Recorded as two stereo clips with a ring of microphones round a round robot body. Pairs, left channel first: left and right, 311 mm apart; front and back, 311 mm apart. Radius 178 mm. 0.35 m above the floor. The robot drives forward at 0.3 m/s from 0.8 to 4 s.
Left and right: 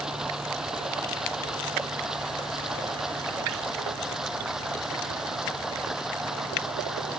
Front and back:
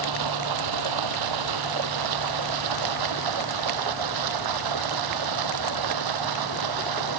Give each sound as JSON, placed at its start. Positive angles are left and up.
{"t": 0.0, "sound": "running water", "azimuth_deg": 180}